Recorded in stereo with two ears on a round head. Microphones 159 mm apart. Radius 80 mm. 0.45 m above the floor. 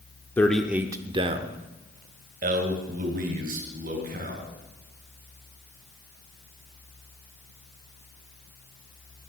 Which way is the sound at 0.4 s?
10° left (ahead or behind).